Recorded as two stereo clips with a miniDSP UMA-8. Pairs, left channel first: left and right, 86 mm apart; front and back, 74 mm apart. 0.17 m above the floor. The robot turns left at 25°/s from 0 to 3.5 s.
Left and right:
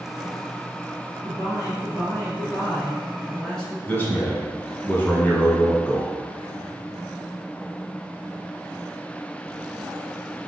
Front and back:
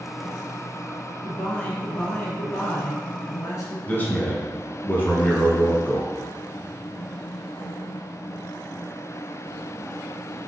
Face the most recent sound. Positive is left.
turn(degrees=40)